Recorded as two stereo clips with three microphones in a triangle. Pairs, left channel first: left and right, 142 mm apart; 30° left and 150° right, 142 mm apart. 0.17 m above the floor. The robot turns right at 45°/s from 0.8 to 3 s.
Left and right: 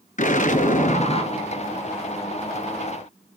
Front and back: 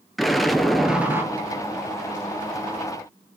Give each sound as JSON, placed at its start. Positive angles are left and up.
{"t": 0.2, "sound": "an explosion", "azimuth_deg": 120, "distance_m": 0.9}